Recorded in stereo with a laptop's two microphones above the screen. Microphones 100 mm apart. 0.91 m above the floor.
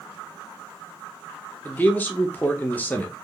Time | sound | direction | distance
1.6 | a man speaking | 15° left (ahead or behind) | 0.6 m